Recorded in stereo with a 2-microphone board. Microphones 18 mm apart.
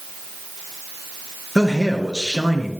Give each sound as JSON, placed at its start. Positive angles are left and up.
{"t": 1.6, "sound": "a man speaking", "side_deg": -40, "distance_m": 2.5}